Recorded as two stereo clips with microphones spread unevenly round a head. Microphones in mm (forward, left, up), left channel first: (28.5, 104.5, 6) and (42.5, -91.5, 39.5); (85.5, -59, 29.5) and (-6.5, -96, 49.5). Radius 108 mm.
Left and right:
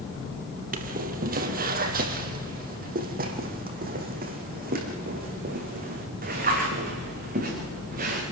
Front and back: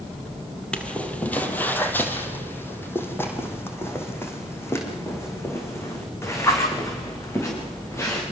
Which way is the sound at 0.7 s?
65° right.